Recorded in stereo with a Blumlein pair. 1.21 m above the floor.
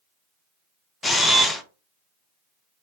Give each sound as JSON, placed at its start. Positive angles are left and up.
{"t": 1.0, "sound": "a camera shutter", "azimuth_deg": 10, "distance_m": 0.5}